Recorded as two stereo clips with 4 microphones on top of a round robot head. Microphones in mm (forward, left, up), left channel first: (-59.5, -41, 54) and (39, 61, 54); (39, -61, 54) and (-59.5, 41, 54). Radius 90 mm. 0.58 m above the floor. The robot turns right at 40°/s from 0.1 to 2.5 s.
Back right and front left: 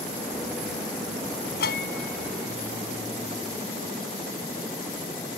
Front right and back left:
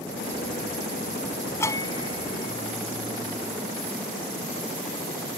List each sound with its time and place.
1.6 s a bell: 120° right; by 4.0 s 85° right